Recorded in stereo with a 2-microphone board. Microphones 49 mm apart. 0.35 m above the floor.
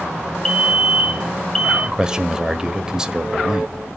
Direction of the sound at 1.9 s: 15° right (ahead or behind).